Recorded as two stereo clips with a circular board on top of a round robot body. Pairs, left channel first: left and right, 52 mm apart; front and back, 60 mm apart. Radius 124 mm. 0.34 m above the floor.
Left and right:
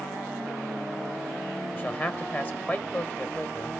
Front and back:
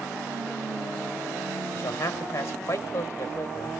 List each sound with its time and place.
1.7 s a man speaking: 40° left, 1.7 m